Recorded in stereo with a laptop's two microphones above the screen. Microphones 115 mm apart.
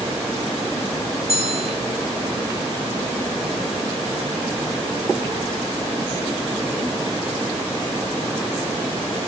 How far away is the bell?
About 1.4 m.